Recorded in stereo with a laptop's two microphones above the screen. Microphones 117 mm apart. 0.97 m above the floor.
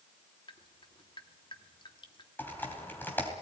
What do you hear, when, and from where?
0.5 s dripping: 45° left (ahead or behind), 1.1 m
2.4 s typing on a keyboard: 15° left (ahead or behind), 3 m